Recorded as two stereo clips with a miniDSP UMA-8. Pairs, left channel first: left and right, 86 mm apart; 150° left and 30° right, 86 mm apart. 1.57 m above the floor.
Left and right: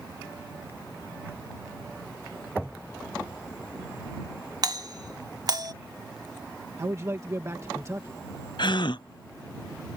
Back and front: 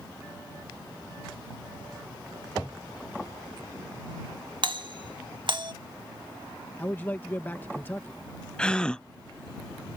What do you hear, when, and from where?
4.6 s a doorbell: 50° right
6.8 s a man speaking: 145° right
8.6 s a gasp: 70° left